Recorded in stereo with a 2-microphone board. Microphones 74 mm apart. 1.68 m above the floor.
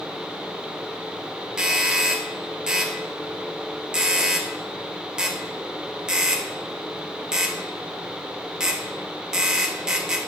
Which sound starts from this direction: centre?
A doorbell, at 1.6 s.